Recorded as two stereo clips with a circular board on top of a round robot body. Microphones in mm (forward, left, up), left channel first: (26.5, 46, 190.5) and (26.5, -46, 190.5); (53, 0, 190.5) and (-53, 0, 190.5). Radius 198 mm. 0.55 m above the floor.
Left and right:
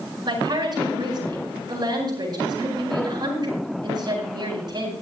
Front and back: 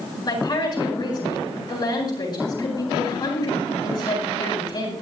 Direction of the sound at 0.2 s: 50° right.